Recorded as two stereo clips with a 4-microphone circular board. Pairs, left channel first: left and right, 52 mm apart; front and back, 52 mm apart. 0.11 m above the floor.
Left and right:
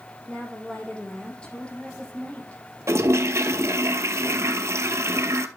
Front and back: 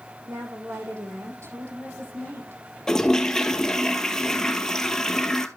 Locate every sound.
0.3 s a woman speaking: 165° left, 4.5 m; by 2.6 s 155° left, 3 m
2.9 s a toilet flushing: 75° right, 0.7 m